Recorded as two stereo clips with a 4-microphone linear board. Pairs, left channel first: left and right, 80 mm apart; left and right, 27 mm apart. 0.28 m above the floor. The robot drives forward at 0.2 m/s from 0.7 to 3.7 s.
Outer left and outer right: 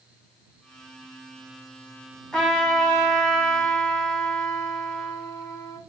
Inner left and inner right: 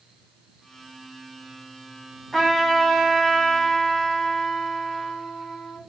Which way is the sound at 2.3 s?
10° left (ahead or behind).